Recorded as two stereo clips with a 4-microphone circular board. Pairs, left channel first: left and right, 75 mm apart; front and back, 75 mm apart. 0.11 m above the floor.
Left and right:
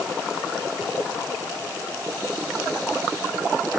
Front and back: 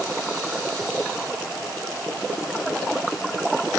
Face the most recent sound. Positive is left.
No sound to turn to.